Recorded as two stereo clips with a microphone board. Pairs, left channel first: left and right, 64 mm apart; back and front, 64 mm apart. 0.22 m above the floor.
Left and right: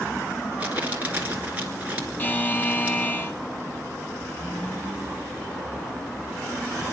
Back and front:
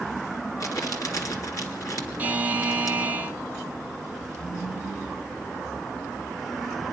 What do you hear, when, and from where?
0.6 s crumpling: 155° right, 2.5 m
2.2 s a buzzer: 50° left, 1.0 m